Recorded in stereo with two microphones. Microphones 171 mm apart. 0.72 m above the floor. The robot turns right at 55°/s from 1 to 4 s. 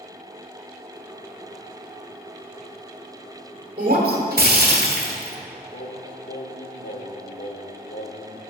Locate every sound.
3.8 s breaking glass: 50° right (ahead or behind), 1.3 m; by 5.4 s 65° right (ahead or behind), 1.3 m
5.7 s singing: 70° left (ahead or behind), 0.8 m